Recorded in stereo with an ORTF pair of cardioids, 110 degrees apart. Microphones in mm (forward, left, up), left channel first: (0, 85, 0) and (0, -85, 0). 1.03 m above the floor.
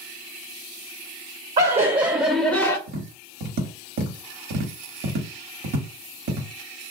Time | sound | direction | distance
1.6 | laughter | 45° right | 0.6 m
2.9 | tapping | 65° right | 1.1 m